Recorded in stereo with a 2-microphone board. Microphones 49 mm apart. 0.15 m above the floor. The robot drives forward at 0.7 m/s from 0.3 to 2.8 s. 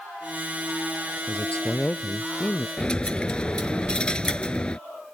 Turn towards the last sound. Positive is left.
turn(degrees=20)  # may be behind; listen again after turning